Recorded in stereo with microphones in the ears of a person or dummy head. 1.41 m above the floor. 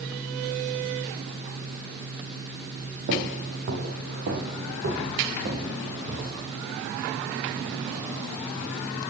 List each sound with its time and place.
3.1 s footsteps: 60° right (ahead or behind), 3 m; by 6.4 s 55° right (ahead or behind), 4.5 m